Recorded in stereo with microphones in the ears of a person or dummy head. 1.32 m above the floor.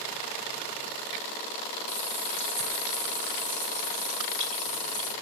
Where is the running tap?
75° right (ahead or behind), 5.5 m.